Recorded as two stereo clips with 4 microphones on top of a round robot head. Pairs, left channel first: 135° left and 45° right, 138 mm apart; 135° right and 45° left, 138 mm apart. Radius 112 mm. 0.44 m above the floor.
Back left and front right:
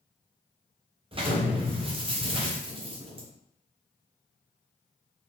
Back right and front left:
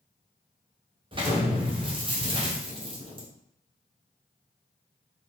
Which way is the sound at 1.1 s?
Straight ahead.